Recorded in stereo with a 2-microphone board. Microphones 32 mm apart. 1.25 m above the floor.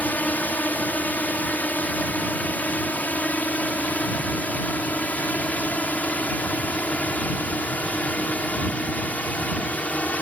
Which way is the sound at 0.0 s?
60° left (ahead or behind).